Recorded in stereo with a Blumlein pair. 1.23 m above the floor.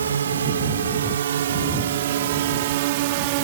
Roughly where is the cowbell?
No cowbell in this recording.